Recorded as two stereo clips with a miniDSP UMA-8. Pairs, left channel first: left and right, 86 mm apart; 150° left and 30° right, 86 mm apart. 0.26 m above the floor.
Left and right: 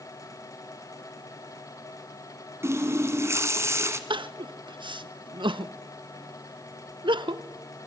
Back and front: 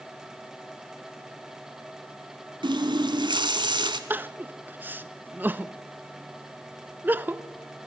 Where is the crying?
95° right, 0.6 m.